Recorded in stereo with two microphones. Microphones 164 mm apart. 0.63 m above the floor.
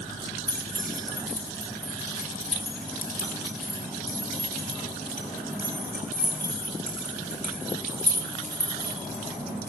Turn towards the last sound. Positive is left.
turn(degrees=50)  # may be behind; listen again after turning